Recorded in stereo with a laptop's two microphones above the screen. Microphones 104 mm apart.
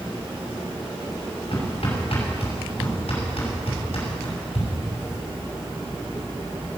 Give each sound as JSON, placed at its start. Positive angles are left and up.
{"t": 1.5, "sound": "hammering", "side_deg": 75, "distance_m": 6.5}